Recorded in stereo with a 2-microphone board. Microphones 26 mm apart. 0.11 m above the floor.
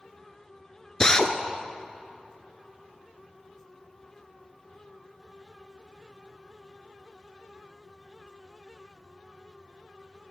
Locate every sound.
1.0 s a drill: 25° left (ahead or behind), 0.6 m